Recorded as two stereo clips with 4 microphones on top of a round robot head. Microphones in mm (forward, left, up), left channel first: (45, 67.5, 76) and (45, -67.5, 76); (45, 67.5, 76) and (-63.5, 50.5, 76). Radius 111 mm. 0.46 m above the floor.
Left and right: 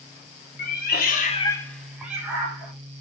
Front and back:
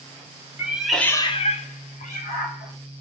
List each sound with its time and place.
0.6 s a cat meowing: 115° left, 0.9 m; by 2.7 s 20° right, 1.6 m